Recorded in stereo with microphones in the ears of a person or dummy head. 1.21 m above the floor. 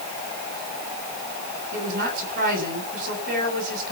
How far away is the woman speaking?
About 8 m.